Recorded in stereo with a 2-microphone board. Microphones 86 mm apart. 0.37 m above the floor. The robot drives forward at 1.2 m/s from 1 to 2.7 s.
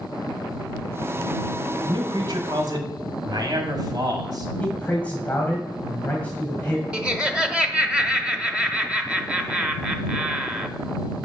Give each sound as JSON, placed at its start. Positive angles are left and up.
{"t": 1.8, "sound": "a man speaking", "side_deg": -60, "distance_m": 1.8}
{"t": 4.6, "sound": "a man speaking", "side_deg": 15, "distance_m": 2.0}
{"t": 6.9, "sound": "laughter", "side_deg": -10, "distance_m": 0.9}